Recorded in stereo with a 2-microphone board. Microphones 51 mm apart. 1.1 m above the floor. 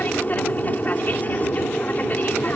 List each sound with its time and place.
0.0 s an aircraft: 30° left (ahead or behind)